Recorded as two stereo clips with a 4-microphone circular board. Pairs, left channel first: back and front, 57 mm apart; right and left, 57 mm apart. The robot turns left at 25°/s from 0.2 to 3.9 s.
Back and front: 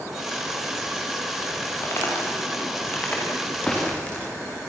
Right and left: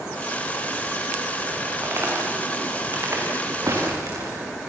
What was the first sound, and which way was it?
Footsteps, 135° left.